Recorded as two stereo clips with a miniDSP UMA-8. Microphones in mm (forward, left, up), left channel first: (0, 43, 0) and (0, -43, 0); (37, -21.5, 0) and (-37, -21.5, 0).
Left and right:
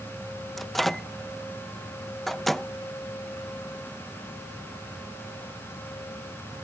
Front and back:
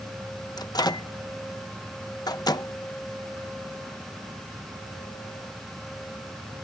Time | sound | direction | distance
0.6 | a microwave | straight ahead | ?